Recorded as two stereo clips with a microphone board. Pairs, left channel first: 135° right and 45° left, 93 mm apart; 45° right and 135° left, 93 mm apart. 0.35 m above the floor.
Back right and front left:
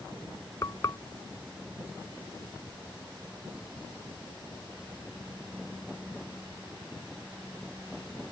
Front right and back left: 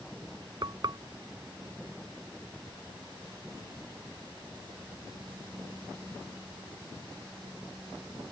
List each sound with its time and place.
0.6 s frying: 175° left